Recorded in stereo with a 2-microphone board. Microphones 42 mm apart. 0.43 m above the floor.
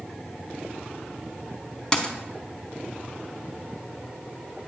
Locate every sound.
1.9 s a dropped coin: 20° left (ahead or behind), 0.7 m